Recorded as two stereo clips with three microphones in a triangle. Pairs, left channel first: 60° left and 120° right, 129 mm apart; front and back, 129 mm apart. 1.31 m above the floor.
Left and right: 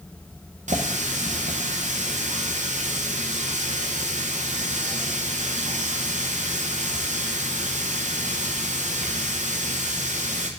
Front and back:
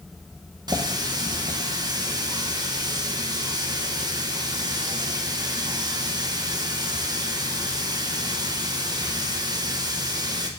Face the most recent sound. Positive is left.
turn(degrees=-125)